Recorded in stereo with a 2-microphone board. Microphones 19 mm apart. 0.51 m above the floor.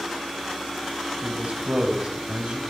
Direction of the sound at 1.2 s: 75° right (ahead or behind).